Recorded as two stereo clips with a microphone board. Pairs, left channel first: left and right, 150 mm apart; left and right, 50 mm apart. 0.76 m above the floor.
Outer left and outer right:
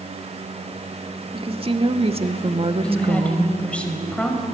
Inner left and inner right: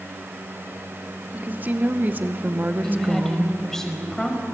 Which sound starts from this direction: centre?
A woman speaking, at 2.8 s.